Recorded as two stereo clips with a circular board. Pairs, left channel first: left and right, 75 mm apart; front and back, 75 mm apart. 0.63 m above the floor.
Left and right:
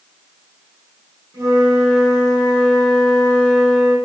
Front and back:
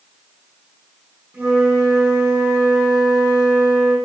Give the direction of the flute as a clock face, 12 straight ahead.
4 o'clock.